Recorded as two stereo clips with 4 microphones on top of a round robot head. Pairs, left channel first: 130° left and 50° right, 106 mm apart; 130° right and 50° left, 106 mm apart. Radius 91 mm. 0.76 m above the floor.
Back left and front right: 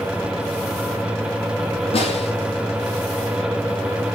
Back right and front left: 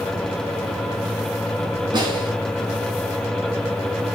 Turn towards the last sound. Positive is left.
turn(degrees=100)